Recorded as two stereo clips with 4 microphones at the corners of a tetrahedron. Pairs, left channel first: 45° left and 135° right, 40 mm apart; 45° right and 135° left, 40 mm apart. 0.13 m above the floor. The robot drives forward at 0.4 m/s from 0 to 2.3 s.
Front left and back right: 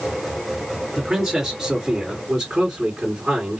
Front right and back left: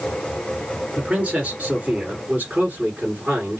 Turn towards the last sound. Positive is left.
turn(degrees=165)